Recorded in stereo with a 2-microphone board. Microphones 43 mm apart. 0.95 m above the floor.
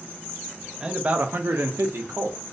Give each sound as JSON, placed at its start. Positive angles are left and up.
{"t": 0.8, "sound": "a man speaking", "side_deg": -15, "distance_m": 0.5}